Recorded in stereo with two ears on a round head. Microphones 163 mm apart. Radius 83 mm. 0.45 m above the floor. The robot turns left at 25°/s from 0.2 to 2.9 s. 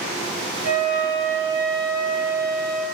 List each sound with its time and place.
0.6 s a flute: 170° right, 2.5 m; by 2.9 s 135° left, 2.5 m